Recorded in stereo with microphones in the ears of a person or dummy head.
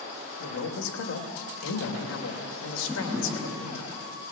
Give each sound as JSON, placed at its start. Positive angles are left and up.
{"t": 0.4, "sound": "a man speaking", "side_deg": 80, "distance_m": 3.0}
{"t": 2.9, "sound": "a drawer", "side_deg": -10, "distance_m": 8.5}